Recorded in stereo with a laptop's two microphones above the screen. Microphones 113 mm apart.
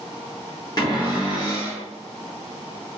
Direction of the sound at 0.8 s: 35° left (ahead or behind).